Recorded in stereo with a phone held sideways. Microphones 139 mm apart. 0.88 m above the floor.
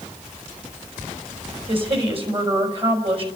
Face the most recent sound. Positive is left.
turn(degrees=-45)  # may be behind; listen again after turning